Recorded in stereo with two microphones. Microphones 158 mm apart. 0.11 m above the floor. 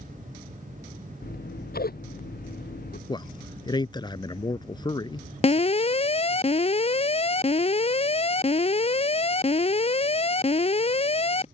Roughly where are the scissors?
Left.